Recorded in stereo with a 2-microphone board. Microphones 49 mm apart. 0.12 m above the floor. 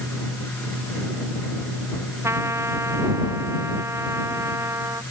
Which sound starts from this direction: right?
A trumpet, at 2.2 s.